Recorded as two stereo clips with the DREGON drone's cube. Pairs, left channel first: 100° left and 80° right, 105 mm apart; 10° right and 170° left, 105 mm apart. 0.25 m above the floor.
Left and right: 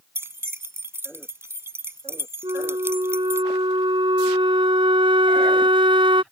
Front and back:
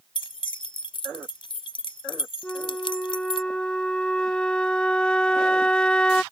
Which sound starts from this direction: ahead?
Keys jangling, at 0.1 s.